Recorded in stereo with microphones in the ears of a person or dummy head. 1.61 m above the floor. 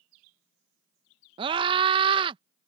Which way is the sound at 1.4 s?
30° right (ahead or behind).